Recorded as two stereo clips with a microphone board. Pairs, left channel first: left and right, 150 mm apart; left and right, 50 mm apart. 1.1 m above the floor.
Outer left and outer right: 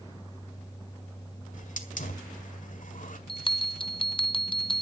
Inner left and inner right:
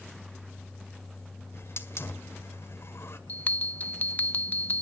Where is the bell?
35° left (ahead or behind), 0.7 m.